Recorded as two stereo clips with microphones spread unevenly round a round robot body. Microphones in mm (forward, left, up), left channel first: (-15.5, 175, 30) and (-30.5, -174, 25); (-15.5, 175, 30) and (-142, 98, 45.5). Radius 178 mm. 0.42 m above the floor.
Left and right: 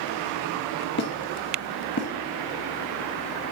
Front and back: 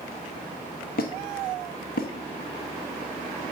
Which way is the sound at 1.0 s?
30° left.